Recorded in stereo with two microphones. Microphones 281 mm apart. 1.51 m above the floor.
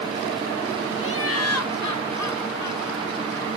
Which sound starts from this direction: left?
Laughter, at 1.0 s.